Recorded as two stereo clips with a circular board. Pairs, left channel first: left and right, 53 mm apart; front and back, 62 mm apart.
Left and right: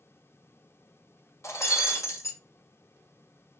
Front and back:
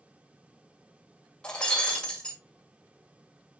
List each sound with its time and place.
1.4 s breaking glass: 75° left, 1.9 m